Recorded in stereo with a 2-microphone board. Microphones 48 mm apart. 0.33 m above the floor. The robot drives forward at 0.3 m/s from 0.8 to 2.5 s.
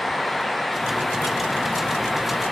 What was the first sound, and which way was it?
Only background noise.